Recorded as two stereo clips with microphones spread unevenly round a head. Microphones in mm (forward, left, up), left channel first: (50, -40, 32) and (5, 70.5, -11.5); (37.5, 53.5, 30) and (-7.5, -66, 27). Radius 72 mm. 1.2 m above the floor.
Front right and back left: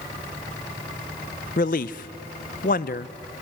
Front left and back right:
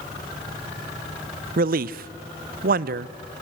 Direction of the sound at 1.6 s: 105° right.